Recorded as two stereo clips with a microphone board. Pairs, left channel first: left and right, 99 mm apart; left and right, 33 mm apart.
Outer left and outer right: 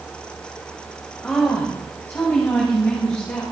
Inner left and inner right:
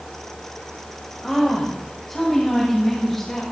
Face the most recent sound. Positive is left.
turn(degrees=25)  # may be behind; listen again after turning